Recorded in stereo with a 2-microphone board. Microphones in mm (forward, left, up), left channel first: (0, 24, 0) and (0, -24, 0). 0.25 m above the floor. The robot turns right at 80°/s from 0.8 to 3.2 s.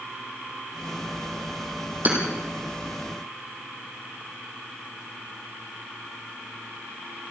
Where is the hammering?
40° right (ahead or behind), 5.5 m; by 2.2 s 50° right (ahead or behind), 5.5 m.